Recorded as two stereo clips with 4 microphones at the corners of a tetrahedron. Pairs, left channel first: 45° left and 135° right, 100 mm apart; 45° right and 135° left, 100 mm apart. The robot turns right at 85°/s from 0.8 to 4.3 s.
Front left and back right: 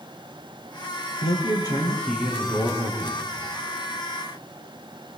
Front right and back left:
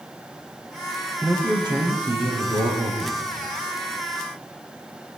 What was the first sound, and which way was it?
A man speaking, 55° left.